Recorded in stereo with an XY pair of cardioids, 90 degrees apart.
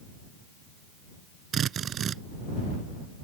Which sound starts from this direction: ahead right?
A drill, at 1.5 s.